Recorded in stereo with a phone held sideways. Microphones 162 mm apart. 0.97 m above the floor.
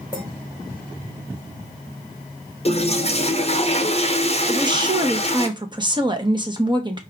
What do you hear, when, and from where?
0.1 s a clink: 25° right (ahead or behind), 3 m
2.6 s a toilet flushing: 40° left (ahead or behind), 0.9 m
4.5 s a woman speaking: 30° right (ahead or behind), 1.0 m